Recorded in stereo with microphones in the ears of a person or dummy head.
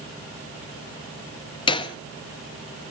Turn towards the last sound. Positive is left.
turn(degrees=30)  # may be behind; listen again after turning